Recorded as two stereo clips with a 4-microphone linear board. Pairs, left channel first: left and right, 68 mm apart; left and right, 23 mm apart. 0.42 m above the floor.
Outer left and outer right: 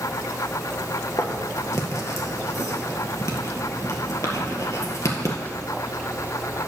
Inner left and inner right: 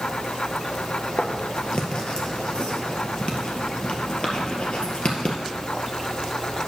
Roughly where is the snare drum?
I don't hear a snare drum.